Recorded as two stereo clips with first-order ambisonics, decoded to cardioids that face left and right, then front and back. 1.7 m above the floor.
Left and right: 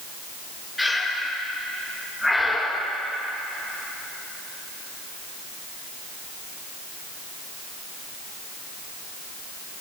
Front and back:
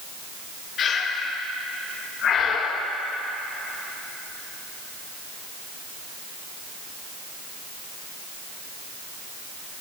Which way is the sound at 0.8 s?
5° left.